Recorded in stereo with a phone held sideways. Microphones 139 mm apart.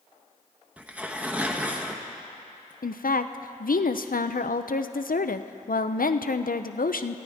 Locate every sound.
0.8 s tearing paper: 10° right (ahead or behind), 1.0 m
2.8 s a woman speaking: 85° left, 0.5 m